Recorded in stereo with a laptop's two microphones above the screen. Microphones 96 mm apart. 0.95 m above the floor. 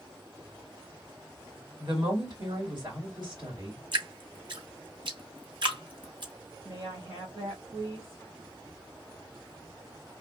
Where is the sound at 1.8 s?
50° right (ahead or behind), 2.5 m.